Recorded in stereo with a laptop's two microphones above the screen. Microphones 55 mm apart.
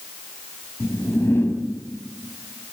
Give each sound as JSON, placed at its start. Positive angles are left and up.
{"t": 0.8, "sound": "a whoosh", "side_deg": 50, "distance_m": 4.5}